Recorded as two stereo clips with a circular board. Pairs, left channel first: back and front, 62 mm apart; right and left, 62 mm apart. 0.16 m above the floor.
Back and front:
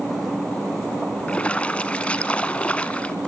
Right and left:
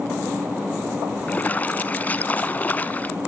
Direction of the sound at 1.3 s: 130° right.